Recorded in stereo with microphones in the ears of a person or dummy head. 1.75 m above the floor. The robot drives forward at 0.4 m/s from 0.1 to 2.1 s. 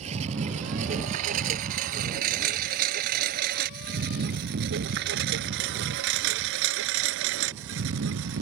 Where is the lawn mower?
45° right (ahead or behind); by 8.4 s 70° right (ahead or behind).